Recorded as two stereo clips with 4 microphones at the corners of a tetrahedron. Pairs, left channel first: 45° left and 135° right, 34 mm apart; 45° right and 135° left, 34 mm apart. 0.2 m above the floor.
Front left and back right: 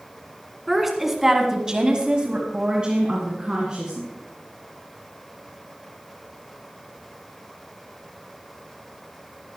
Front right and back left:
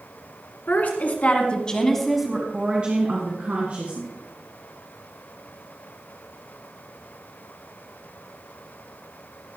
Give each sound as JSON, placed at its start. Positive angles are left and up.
{"t": 0.7, "sound": "a woman speaking", "azimuth_deg": -50, "distance_m": 2.5}